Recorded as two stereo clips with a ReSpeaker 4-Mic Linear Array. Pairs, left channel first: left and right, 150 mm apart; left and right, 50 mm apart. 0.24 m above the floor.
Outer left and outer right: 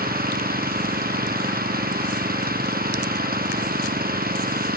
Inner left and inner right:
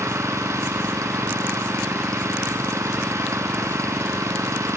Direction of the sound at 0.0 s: 80° right.